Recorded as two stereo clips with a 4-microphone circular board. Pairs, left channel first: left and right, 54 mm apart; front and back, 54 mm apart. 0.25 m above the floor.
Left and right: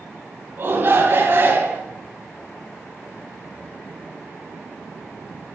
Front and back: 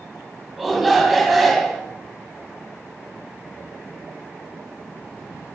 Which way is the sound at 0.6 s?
90° right.